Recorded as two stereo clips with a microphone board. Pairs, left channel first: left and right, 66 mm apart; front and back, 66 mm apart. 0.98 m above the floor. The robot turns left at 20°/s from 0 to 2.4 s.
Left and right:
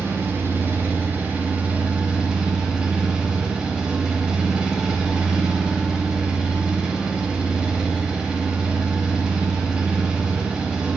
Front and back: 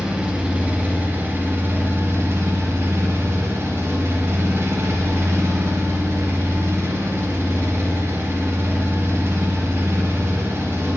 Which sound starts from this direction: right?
An engine running, at 0.0 s.